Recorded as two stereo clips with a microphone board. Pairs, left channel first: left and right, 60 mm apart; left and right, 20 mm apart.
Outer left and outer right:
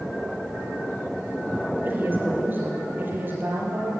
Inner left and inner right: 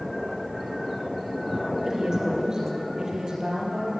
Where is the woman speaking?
30° right (ahead or behind), 5.5 m; by 3.9 s 35° right (ahead or behind), 6.5 m.